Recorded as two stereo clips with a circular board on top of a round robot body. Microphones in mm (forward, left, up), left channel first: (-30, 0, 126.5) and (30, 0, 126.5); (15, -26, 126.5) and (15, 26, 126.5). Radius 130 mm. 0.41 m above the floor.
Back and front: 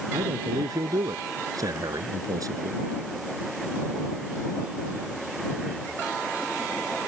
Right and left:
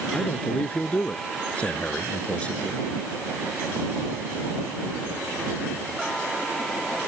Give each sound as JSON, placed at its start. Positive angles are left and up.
{"t": 0.1, "sound": "a man speaking", "azimuth_deg": -20}